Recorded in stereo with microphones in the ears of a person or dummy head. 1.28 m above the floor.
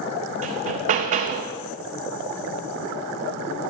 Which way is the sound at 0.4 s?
30° right (ahead or behind).